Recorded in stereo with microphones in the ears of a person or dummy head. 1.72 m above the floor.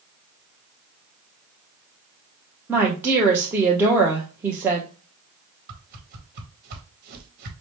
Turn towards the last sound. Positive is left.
turn(degrees=-50)  # may be behind; listen again after turning